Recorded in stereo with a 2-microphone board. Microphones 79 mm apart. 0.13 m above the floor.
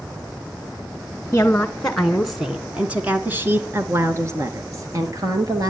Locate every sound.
1.3 s a woman speaking: 20° left (ahead or behind), 1.2 m; by 5.7 s 50° right (ahead or behind), 2.5 m